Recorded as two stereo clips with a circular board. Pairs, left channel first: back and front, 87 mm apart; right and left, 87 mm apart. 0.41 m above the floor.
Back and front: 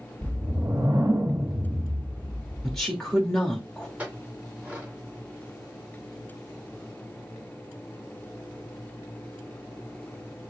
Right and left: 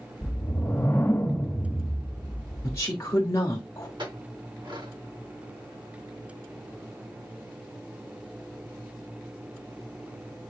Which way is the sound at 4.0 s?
75° left.